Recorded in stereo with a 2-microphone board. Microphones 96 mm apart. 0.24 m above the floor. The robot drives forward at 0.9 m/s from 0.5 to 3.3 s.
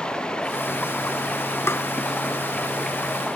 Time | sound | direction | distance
0.0 | running water | 10° left (ahead or behind) | ?
1.7 | tapping | 25° left (ahead or behind) | ?